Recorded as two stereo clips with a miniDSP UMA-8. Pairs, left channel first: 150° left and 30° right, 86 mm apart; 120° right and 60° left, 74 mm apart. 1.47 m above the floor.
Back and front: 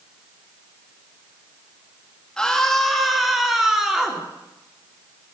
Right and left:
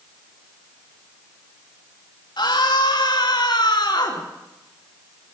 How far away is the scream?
About 2.5 m.